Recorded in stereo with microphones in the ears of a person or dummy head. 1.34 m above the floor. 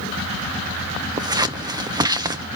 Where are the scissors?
25° right (ahead or behind), 0.6 m.